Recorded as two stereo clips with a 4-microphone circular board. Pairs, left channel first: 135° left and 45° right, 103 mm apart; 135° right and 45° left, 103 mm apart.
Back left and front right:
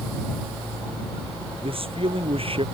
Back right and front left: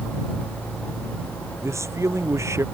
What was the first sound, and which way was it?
A man speaking, 20° right.